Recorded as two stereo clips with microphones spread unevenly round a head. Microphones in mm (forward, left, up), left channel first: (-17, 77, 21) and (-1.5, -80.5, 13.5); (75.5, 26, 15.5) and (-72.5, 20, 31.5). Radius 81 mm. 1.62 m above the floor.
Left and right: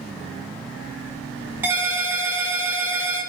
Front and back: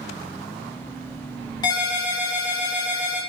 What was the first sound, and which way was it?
A ringtone, 25° right.